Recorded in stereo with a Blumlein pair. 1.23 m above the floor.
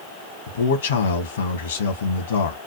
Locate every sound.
0.5 s a man speaking: 65° left, 1.1 m